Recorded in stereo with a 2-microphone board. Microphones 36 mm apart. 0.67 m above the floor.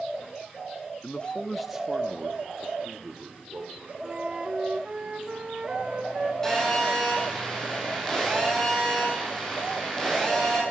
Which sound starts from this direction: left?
A man speaking, at 1.0 s.